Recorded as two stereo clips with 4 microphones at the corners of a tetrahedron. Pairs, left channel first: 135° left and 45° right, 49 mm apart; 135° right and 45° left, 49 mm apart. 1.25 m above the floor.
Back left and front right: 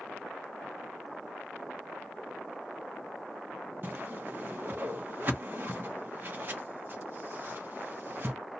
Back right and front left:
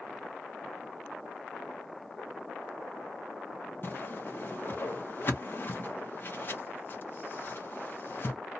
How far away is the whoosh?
About 0.9 m.